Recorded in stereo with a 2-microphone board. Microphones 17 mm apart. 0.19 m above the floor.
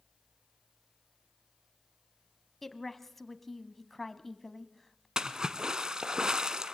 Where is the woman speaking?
15° left (ahead or behind), 1.0 m.